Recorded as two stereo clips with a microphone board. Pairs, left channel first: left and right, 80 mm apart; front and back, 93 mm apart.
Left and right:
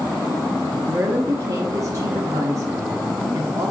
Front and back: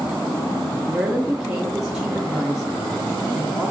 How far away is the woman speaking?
About 0.7 m.